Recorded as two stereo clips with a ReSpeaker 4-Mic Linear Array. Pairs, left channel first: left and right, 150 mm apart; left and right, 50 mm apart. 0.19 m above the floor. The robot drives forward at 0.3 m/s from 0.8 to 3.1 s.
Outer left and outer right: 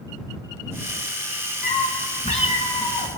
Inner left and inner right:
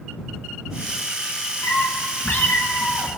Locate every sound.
1.6 s a cat meowing: 50° left (ahead or behind), 0.9 m; by 3.1 s 40° left (ahead or behind), 1.1 m